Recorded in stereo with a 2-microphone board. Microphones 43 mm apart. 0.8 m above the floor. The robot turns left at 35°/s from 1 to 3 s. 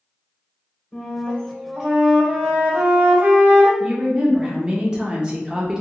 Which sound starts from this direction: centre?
A woman speaking, at 3.8 s.